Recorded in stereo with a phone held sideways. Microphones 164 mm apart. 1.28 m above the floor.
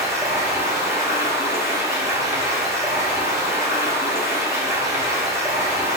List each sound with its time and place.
0.0 s running water: 15° right (ahead or behind), 0.9 m